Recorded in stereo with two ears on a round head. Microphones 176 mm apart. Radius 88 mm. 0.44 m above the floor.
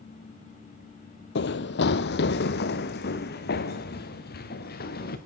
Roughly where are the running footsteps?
Left.